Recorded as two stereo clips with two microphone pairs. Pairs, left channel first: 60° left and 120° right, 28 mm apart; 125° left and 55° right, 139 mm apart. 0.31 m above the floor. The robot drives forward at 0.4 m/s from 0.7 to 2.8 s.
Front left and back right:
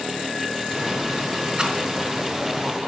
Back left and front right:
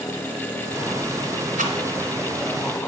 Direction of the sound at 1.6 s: 65° right.